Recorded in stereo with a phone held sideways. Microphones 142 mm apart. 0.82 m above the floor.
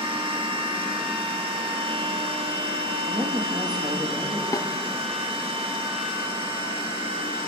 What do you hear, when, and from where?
0.0 s a machine running: 40° right (ahead or behind), 1.4 m
3.1 s a woman speaking: 30° right (ahead or behind), 1.5 m
4.5 s a snare drum: 25° left (ahead or behind), 0.7 m